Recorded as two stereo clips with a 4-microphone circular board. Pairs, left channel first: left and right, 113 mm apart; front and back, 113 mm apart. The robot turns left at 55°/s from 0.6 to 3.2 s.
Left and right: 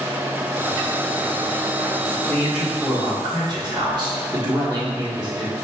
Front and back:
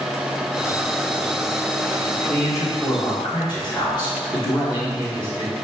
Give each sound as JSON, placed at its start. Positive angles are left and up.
{"t": 2.3, "sound": "a man speaking", "azimuth_deg": 5, "distance_m": 1.3}